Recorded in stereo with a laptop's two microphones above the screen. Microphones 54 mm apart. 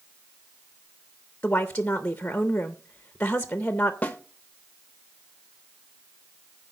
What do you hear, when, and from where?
1.4 s a woman speaking: 25° left (ahead or behind), 0.6 m
4.0 s a snare drum: 25° left (ahead or behind), 1.1 m